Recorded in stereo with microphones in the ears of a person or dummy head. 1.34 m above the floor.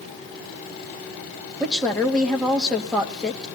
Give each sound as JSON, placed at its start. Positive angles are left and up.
{"t": 1.6, "sound": "a woman speaking", "side_deg": 5, "distance_m": 1.8}